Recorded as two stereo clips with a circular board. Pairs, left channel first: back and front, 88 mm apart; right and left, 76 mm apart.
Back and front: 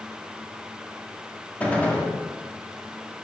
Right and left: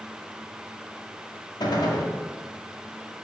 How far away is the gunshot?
About 1.6 m.